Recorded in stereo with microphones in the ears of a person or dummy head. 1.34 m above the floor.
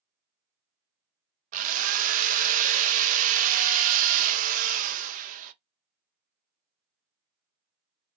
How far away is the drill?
About 0.5 m.